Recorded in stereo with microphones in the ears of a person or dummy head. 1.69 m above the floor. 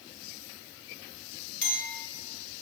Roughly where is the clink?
Left.